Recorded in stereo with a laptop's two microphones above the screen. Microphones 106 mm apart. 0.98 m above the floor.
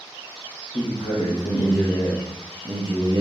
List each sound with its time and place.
0.7 s a man speaking: 60° left (ahead or behind), 1.0 m; by 3.2 s 45° right (ahead or behind), 0.7 m